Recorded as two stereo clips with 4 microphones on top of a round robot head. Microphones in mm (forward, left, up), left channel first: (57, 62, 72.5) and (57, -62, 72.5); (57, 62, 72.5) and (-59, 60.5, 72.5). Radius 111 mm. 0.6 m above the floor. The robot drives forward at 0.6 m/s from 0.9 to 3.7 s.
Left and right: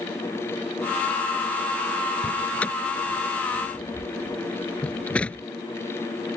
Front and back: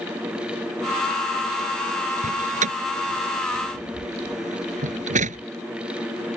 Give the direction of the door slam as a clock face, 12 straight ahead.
6 o'clock.